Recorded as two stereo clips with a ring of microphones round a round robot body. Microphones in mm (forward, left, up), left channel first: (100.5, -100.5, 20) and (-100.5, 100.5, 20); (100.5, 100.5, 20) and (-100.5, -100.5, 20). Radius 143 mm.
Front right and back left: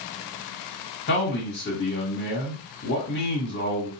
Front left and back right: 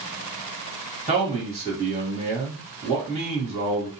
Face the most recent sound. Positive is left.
turn(degrees=-75)